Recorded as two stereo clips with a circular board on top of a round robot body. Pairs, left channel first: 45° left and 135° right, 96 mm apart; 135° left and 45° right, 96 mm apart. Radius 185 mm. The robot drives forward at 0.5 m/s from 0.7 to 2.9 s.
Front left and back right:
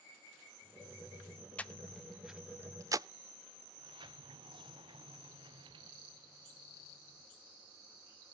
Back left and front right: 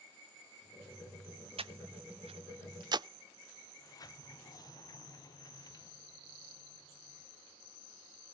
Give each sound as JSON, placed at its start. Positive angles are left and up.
{"t": 1.6, "sound": "breathing", "azimuth_deg": -30, "distance_m": 0.9}
{"t": 3.8, "sound": "a sliding door", "azimuth_deg": -170, "distance_m": 1.1}